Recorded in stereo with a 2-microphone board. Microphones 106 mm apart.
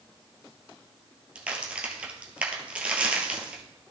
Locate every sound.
1.4 s a crack: 10° right (ahead or behind), 1.7 m